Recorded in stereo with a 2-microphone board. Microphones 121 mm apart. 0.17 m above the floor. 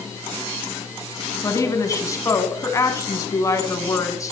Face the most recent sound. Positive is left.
turn(degrees=25)  # may be behind; listen again after turning